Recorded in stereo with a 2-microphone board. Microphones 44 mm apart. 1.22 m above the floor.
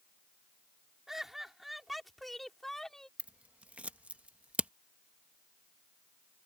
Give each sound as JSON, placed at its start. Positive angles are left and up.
{"t": 1.1, "sound": "laughter", "side_deg": -10}
{"t": 3.2, "sound": "scissors", "side_deg": -35}